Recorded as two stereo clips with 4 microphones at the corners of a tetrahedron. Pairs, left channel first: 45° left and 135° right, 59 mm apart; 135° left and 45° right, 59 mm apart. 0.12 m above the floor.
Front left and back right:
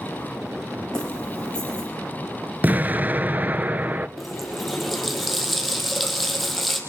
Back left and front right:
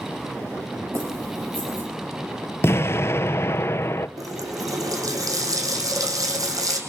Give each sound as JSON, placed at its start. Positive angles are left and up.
{"t": 0.9, "sound": "keys jangling", "azimuth_deg": -30, "distance_m": 6.5}
{"t": 2.6, "sound": "an explosion", "azimuth_deg": 170, "distance_m": 0.6}
{"t": 4.2, "sound": "a running tap", "azimuth_deg": -45, "distance_m": 3.0}